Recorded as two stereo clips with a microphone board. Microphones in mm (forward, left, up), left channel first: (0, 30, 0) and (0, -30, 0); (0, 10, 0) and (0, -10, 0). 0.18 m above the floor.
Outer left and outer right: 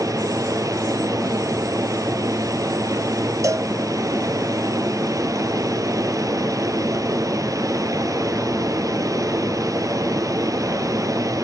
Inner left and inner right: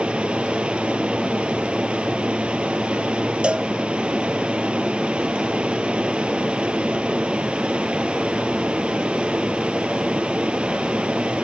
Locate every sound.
0.0 s running water: 75° right (ahead or behind), 2 m
3.4 s a cowbell: 65° right (ahead or behind), 0.9 m